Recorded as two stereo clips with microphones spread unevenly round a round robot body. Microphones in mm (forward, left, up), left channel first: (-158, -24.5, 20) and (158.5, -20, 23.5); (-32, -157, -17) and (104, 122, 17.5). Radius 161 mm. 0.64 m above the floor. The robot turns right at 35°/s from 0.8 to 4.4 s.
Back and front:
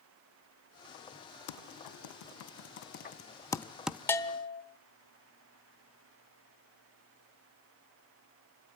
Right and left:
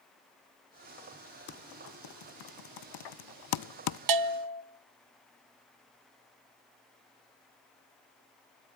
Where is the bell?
95° left, 1.0 m; by 4.6 s 110° left, 1.0 m.